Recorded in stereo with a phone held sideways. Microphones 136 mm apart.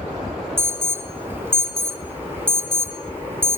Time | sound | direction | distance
0.6 | an alarm | 15° right (ahead or behind) | 1.2 m